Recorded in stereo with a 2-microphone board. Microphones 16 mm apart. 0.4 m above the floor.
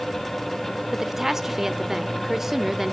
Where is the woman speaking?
20° right (ahead or behind), 0.8 m.